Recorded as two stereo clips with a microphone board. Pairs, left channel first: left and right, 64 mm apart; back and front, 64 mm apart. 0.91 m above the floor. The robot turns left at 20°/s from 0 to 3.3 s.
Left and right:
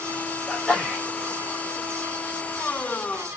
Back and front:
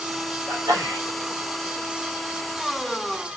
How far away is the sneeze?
About 1.7 m.